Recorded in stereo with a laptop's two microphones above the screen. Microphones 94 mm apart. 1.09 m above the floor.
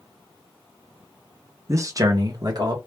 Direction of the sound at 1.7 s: 30° right (ahead or behind).